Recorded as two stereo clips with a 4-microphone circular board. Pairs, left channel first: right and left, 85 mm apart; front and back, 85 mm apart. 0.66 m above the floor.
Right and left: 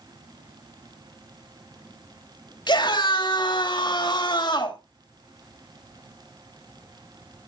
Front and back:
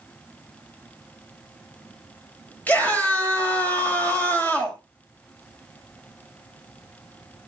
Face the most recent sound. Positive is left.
turn(degrees=-70)